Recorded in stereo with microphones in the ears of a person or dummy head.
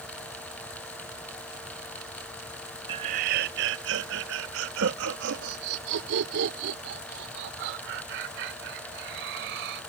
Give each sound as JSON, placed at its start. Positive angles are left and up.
{"t": 2.9, "sound": "laughter", "side_deg": -20}